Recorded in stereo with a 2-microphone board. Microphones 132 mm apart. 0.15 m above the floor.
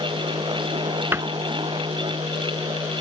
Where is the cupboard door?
20° right (ahead or behind).